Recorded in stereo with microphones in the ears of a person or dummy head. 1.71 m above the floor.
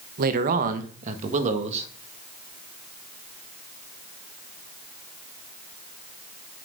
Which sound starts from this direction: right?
A man speaking, at 0.2 s.